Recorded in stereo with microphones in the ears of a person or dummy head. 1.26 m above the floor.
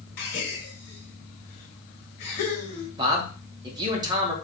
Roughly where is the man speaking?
Right.